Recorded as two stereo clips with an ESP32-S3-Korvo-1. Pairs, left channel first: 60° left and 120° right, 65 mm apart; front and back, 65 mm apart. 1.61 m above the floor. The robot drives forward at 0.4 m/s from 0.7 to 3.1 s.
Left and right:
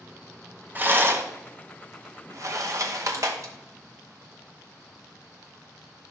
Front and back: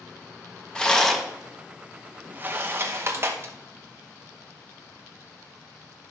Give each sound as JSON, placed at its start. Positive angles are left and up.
{"t": 0.8, "sound": "a rattle", "azimuth_deg": -70, "distance_m": 0.9}